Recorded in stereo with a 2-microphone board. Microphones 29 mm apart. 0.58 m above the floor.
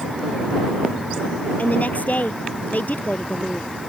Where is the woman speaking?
60° left (ahead or behind).